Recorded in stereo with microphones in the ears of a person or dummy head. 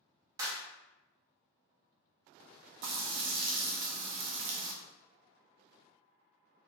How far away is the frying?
About 0.6 m.